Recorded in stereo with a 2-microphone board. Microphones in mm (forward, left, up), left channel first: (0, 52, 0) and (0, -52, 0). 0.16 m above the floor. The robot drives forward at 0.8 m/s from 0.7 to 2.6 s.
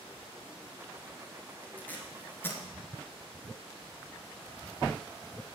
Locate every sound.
1.8 s tape being pulled: 15° left (ahead or behind), 2 m; by 2.6 s 20° left (ahead or behind), 1.7 m